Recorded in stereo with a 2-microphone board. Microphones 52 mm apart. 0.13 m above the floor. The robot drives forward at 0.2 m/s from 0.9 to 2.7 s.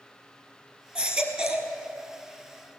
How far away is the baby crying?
About 1.4 m.